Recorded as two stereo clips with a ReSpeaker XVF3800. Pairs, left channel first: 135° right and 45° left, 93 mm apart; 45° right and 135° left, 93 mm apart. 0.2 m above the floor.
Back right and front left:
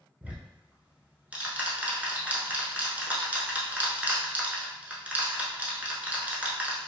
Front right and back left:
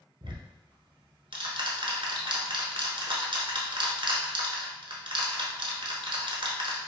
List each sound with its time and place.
0.2 s ticking: 120° left, 0.8 m